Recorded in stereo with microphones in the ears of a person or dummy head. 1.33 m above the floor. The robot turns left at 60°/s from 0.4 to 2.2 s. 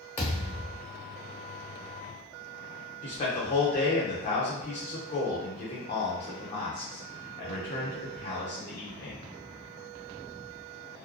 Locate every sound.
0.2 s a thud: 10° left (ahead or behind), 0.9 m; by 0.8 s 5° right (ahead or behind), 0.9 m
3.0 s a man speaking: 40° left (ahead or behind), 0.9 m